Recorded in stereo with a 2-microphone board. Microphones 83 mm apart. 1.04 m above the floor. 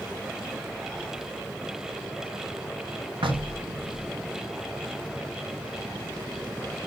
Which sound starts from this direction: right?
Knocking, at 3.2 s.